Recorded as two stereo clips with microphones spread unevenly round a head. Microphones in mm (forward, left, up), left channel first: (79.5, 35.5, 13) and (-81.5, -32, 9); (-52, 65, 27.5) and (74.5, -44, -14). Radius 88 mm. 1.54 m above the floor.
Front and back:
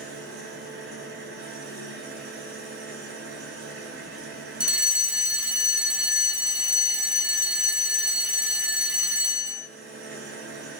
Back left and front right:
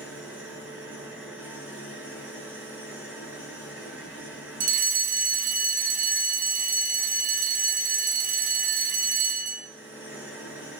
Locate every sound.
0.0 s an engine running: 125° right, 9.5 m
4.6 s a fire alarm: 75° right, 2.5 m